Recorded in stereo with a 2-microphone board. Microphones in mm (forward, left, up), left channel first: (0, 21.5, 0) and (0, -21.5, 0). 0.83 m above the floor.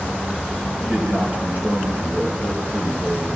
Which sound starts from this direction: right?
A man speaking, at 0.8 s.